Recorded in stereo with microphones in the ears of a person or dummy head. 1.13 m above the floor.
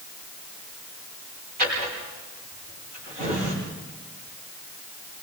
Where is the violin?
No violin in this recording.